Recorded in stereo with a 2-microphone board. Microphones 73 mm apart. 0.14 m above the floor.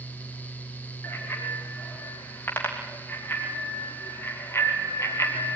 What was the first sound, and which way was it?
A bicycle bell, 30° left (ahead or behind).